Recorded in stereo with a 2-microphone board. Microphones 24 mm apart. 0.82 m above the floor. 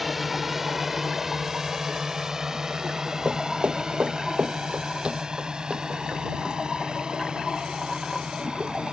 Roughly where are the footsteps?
Right.